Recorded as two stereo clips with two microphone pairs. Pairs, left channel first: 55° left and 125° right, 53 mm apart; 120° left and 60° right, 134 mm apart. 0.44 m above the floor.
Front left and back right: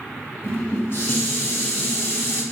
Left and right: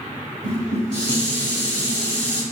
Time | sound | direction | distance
0.4 | dishes clattering | 85° left | 1.2 m